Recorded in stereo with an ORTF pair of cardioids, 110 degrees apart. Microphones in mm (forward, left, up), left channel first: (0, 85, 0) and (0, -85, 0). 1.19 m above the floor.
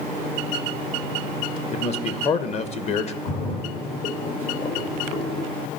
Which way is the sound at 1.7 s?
40° left.